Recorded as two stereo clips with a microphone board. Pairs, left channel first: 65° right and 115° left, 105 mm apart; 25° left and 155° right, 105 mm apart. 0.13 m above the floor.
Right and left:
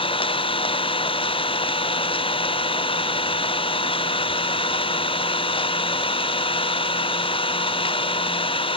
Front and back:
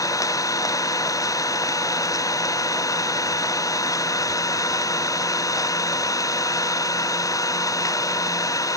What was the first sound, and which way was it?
An engine running, 35° right.